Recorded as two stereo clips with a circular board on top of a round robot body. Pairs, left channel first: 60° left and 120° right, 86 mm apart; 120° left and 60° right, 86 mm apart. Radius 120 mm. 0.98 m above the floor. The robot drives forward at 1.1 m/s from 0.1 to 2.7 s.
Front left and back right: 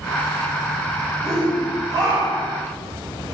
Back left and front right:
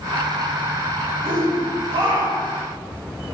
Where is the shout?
70° right, 5 m; by 2.6 s 90° right, 5 m.